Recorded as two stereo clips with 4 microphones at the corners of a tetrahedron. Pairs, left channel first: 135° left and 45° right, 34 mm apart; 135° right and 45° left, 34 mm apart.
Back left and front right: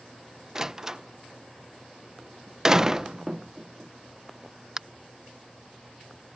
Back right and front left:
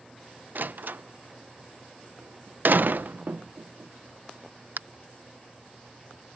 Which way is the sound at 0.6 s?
30° left.